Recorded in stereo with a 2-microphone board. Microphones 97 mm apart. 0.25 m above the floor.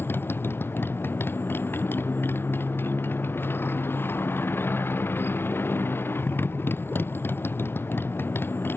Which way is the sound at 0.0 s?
20° left (ahead or behind).